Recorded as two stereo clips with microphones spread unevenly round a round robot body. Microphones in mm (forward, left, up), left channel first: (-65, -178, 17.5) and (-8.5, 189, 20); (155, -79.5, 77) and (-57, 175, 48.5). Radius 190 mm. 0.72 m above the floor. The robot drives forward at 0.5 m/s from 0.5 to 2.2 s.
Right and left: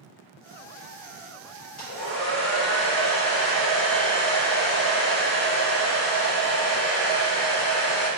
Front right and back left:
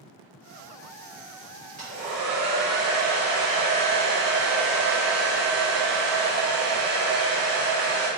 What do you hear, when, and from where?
1.8 s a hair dryer: 140° right, 2.0 m; by 8.1 s 145° right, 2 m